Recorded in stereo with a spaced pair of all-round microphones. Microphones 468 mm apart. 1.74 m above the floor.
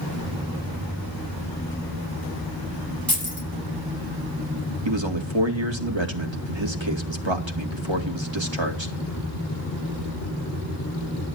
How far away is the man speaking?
About 2.5 m.